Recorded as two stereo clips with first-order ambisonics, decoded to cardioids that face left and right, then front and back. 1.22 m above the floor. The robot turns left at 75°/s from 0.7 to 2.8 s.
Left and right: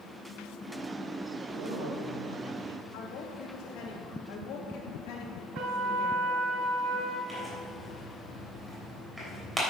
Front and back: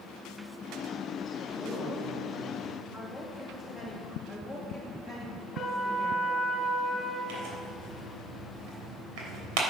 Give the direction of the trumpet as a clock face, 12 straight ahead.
2 o'clock.